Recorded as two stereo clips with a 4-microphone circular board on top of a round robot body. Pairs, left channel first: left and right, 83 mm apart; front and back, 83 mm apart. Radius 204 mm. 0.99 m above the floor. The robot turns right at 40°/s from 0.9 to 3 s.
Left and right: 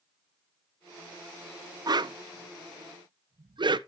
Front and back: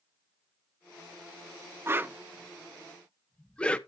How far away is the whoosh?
About 0.7 m.